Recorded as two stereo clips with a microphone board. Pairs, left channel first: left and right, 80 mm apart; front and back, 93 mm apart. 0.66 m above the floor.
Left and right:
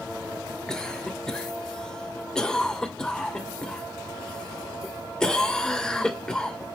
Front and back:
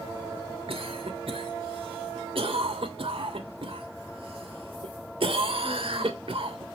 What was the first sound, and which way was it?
A cough, 170° left.